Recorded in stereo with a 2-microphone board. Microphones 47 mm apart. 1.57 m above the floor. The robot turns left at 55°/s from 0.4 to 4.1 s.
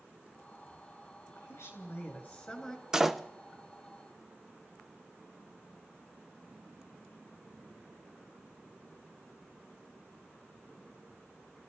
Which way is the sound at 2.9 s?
15° right (ahead or behind).